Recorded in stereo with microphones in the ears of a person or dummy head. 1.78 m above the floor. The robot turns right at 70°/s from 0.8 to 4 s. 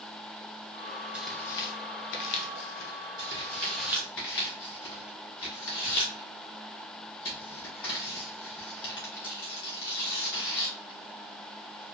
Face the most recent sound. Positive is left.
turn(degrees=20)  # may be behind; listen again after turning